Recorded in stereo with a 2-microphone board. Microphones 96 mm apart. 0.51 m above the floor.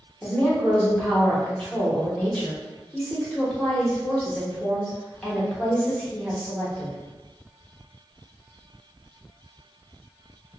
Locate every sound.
0.2 s a woman speaking: 10° left (ahead or behind), 0.9 m